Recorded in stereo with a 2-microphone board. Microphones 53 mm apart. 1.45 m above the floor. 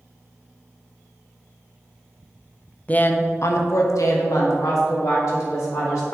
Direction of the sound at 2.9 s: 25° left (ahead or behind).